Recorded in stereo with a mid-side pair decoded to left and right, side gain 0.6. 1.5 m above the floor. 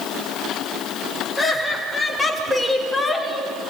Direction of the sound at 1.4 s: 10° left.